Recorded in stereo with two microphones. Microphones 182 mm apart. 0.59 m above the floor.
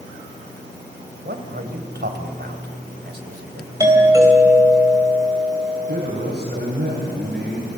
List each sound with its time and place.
1.2 s a man speaking: 70° right (ahead or behind), 2.5 m
3.8 s a doorbell: 20° right (ahead or behind), 4 m
5.9 s a man speaking: 80° right, 6 m